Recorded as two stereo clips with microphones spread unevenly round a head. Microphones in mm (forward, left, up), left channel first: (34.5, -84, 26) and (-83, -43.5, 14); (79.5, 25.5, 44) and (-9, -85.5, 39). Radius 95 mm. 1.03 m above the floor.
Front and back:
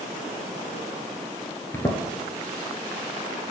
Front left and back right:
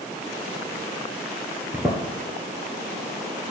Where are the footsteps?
60° right, 1.1 m.